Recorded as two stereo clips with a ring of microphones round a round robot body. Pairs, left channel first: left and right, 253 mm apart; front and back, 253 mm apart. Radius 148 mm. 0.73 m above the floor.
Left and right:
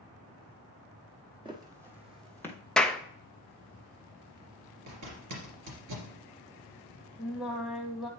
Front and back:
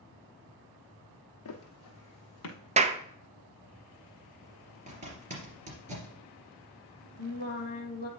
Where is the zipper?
120° right, 3 m.